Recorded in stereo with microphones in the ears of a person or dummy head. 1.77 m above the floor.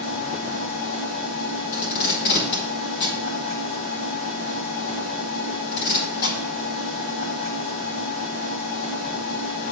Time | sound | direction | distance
0.0 | a machine running | 40° left (ahead or behind) | 1.7 m
1.7 | tape being pulled | 65° left (ahead or behind) | 2.0 m